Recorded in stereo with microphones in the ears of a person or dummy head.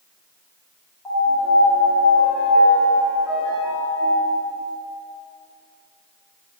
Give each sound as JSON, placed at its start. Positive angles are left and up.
{"t": 1.1, "sound": "a piano", "side_deg": 10, "distance_m": 3.0}